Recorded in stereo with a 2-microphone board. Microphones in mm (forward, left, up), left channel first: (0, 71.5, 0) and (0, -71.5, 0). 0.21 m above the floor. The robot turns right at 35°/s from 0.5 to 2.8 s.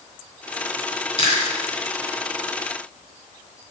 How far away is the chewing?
About 2.5 m.